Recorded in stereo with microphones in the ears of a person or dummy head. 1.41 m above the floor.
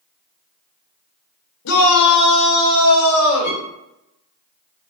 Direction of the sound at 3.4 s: 50° left (ahead or behind).